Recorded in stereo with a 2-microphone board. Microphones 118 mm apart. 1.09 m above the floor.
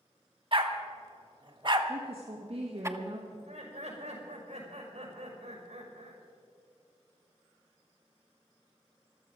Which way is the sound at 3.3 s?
80° right.